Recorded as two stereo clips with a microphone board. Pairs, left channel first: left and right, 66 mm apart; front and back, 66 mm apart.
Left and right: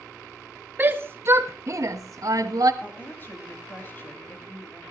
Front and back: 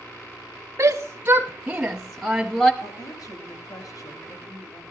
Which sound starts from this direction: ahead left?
A woman speaking, at 2.8 s.